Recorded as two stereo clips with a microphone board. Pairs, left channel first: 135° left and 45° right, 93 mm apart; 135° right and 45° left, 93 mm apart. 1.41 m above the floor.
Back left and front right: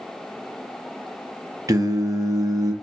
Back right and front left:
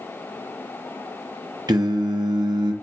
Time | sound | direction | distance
1.7 | singing | 5° left | 0.6 m